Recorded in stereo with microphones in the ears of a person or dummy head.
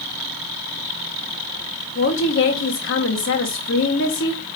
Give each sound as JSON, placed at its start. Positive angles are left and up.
{"t": 1.9, "sound": "a woman speaking", "side_deg": 60, "distance_m": 1.2}